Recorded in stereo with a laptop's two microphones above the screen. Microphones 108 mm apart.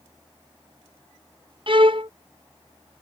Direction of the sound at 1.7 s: 50° right (ahead or behind).